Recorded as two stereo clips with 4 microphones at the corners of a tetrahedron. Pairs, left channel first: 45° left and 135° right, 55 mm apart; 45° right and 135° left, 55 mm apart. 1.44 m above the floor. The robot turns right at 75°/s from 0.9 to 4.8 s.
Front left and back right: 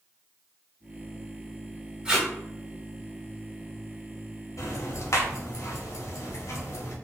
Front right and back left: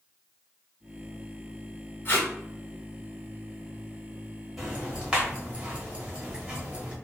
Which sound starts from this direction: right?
Tape being pulled, at 2.0 s.